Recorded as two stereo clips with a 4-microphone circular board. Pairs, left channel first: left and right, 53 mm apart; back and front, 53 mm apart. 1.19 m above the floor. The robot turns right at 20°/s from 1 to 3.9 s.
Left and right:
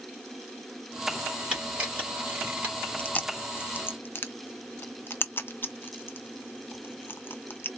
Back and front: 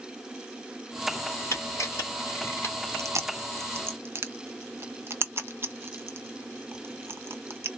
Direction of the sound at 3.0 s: 25° left.